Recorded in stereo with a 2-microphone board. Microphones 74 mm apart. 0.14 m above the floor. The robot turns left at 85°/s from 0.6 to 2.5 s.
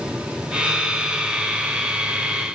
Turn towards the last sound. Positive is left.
No sound to turn to.